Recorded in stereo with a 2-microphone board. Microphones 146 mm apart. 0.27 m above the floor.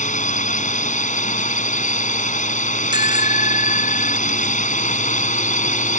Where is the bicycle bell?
30° right (ahead or behind).